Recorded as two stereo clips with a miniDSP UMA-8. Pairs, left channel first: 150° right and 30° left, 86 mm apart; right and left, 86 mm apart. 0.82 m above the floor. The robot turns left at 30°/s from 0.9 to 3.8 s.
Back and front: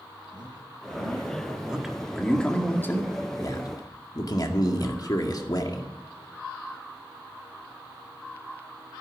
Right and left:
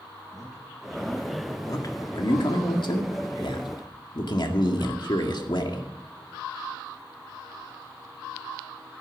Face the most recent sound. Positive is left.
turn(degrees=-115)